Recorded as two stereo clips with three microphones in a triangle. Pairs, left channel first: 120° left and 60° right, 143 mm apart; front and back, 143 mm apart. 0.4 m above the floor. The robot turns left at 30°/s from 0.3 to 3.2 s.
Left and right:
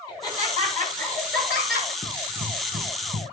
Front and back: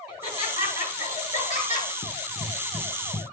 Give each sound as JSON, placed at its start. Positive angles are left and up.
{"t": 0.1, "sound": "laughter", "azimuth_deg": 0, "distance_m": 8.0}
{"t": 2.0, "sound": "running footsteps", "azimuth_deg": -25, "distance_m": 4.0}